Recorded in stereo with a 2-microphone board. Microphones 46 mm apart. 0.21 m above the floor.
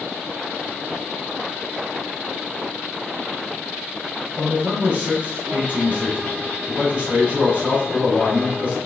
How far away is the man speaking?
About 1.7 m.